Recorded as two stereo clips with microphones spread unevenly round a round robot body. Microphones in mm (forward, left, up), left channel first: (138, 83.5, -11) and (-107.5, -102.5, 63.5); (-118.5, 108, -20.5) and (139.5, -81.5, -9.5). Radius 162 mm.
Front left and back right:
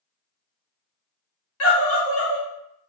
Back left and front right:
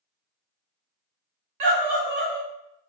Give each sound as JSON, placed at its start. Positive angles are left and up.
{"t": 1.6, "sound": "a scream", "azimuth_deg": -5, "distance_m": 1.8}